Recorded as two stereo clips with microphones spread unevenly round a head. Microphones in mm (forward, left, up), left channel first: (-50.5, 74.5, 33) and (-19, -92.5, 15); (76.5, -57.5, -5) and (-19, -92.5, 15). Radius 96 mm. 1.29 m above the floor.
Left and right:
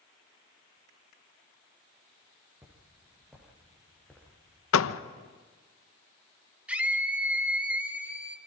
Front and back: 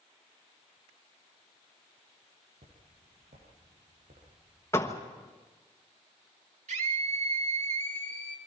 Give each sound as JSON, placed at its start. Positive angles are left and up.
{"t": 2.6, "sound": "footsteps", "azimuth_deg": -155, "distance_m": 6.0}
{"t": 4.7, "sound": "a door slam", "azimuth_deg": 100, "distance_m": 1.0}
{"t": 6.7, "sound": "a scream", "azimuth_deg": -165, "distance_m": 3.0}